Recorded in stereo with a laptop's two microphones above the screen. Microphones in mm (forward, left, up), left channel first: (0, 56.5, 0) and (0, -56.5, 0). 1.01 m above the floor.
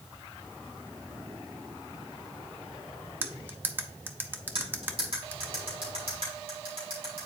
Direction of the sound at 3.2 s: 20° right (ahead or behind).